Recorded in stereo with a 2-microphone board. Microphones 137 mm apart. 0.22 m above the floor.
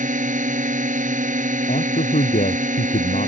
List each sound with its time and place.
0.0 s a drone: 70° right (ahead or behind)
1.7 s a man speaking: 75° left (ahead or behind)